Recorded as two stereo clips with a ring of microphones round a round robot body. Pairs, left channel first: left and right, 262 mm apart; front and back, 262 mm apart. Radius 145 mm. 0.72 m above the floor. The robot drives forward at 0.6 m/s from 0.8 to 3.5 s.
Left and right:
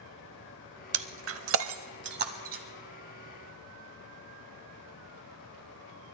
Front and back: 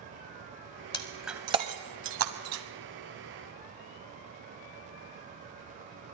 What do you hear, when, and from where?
0.9 s breaking glass: 70° right, 0.7 m; by 2.6 s 150° right, 1.1 m